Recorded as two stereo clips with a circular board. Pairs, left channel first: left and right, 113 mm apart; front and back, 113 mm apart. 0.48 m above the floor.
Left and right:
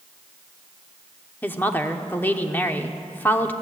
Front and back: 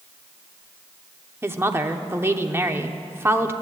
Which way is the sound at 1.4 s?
140° left.